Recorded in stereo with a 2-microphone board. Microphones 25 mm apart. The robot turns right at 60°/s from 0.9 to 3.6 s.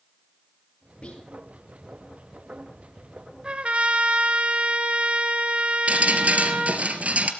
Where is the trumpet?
35° right (ahead or behind), 1.7 m; by 6.9 s 45° right (ahead or behind), 1.7 m.